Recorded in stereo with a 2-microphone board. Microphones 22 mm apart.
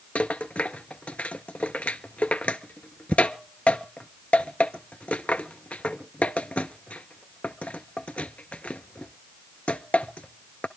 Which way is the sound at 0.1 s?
85° left.